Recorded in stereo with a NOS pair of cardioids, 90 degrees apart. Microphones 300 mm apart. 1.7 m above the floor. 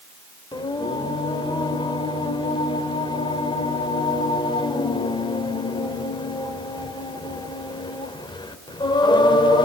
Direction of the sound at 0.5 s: 15° left.